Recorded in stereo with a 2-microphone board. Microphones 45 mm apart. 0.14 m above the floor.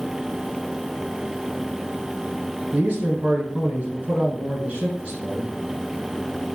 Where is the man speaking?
35° right (ahead or behind), 1.2 m.